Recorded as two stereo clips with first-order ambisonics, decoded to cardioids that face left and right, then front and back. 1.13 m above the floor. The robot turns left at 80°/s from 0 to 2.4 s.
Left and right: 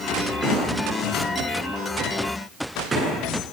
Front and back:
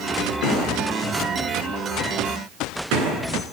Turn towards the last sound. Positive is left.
turn(degrees=-165)